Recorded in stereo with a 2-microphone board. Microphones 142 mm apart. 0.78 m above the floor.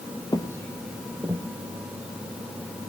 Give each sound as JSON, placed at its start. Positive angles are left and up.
{"t": 0.3, "sound": "footsteps", "side_deg": 30, "distance_m": 1.3}